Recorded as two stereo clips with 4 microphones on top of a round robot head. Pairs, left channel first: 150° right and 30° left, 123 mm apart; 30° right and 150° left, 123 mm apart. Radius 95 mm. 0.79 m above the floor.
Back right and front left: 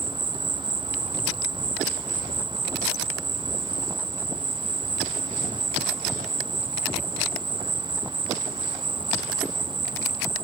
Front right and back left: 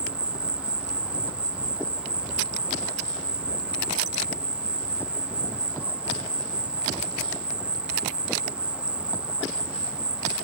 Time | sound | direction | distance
0.0 | an insect | 70° left | 0.7 m